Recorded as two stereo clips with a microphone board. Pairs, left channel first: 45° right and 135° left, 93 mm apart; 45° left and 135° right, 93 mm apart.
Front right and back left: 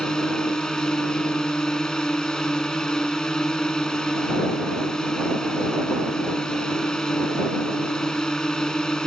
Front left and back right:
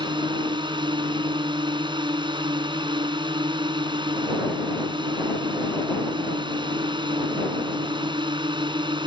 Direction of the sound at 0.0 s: 125° right.